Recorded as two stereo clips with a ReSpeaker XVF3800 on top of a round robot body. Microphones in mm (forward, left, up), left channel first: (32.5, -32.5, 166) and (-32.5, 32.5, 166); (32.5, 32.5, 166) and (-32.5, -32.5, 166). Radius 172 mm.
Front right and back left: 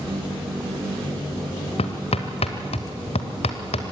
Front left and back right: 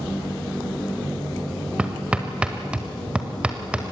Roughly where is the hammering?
Ahead right.